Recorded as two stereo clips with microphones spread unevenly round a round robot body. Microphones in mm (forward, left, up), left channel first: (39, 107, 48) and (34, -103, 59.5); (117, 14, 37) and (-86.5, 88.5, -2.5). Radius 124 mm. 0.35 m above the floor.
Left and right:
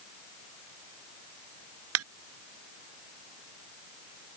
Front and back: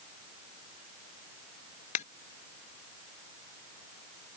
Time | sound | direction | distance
1.9 | a ringtone | 80° right | ?